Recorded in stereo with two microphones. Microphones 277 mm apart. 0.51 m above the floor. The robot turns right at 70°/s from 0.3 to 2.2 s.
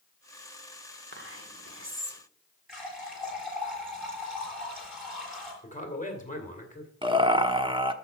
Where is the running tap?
Centre (ahead or behind), 7 m.